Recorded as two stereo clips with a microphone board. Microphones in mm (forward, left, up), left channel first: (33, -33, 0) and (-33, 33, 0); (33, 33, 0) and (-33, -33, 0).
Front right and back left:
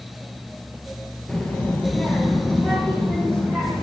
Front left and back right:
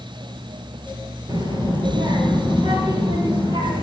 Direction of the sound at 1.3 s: 120° right.